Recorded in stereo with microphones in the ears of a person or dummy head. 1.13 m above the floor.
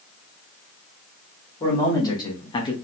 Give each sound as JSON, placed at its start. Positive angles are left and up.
{"t": 1.6, "sound": "a man speaking", "side_deg": 20, "distance_m": 1.1}